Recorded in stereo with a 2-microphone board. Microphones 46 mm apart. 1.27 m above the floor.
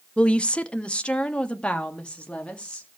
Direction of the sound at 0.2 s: 25° left (ahead or behind).